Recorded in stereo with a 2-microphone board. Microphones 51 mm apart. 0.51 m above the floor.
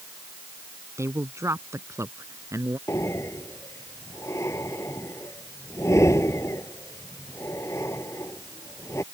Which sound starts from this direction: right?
A man speaking, at 1.0 s.